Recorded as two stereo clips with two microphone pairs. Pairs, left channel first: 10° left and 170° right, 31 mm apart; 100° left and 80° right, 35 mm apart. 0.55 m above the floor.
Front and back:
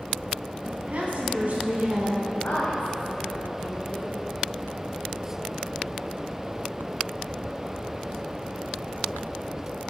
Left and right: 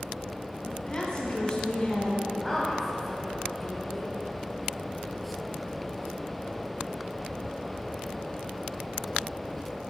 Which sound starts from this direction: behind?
A woman speaking, at 0.7 s.